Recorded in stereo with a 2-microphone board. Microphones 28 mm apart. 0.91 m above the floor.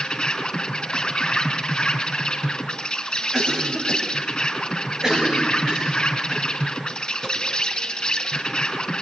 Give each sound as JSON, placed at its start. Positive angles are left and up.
{"t": 0.0, "sound": "an insect", "side_deg": 25, "distance_m": 3.5}
{"t": 3.3, "sound": "a cough", "side_deg": -25, "distance_m": 5.0}